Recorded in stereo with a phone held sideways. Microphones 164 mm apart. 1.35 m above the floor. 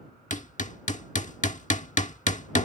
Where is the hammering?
50° left (ahead or behind).